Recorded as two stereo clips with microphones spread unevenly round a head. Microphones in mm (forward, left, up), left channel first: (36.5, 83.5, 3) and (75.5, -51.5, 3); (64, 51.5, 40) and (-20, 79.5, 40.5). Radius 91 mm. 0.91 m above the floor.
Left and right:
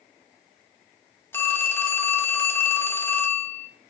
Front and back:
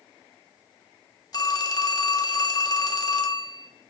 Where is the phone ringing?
30° left, 1.3 m.